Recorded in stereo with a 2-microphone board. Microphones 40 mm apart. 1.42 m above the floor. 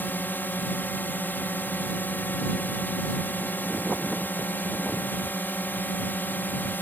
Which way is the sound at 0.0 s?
55° left (ahead or behind).